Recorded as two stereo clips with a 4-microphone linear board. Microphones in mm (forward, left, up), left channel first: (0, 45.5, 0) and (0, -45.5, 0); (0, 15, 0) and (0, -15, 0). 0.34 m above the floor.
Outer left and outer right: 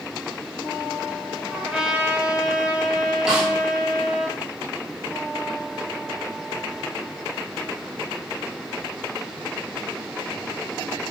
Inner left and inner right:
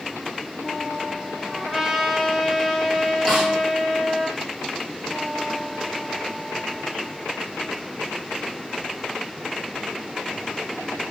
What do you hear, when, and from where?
1.5 s a trumpet: 10° right (ahead or behind), 0.6 m
3.3 s a snare drum: 5° right (ahead or behind), 1.5 m